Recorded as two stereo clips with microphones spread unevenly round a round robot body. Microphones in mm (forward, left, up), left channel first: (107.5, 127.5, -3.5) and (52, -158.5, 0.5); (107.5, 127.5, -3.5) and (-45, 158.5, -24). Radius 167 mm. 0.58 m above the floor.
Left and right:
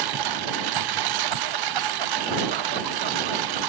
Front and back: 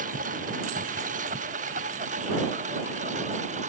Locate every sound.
0.0 s a lawn mower: 125° right; by 3.7 s 120° right